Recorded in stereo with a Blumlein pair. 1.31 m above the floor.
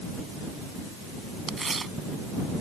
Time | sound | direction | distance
1.5 | tearing paper | 15° right | ?